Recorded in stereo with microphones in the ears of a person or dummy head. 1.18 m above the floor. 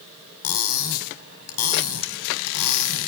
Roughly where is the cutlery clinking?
Left.